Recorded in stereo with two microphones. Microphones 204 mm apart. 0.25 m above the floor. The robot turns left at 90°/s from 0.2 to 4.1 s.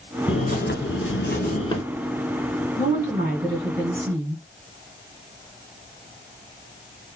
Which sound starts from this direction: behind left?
A bird, at 0.3 s.